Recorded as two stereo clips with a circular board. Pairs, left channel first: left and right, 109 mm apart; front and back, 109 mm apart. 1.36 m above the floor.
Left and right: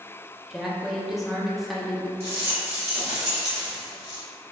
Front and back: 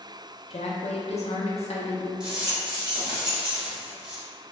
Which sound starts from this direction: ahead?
A woman speaking, at 0.5 s.